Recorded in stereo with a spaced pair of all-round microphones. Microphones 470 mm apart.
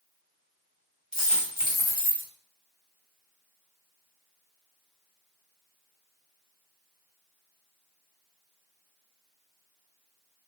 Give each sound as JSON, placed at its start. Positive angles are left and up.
{"t": 1.1, "sound": "a dropped coin", "side_deg": 45, "distance_m": 2.0}